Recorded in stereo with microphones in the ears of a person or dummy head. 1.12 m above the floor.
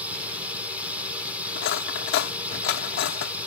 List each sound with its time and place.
0.0 s a drone: 5° right (ahead or behind)
1.6 s cutlery clinking: 65° left (ahead or behind)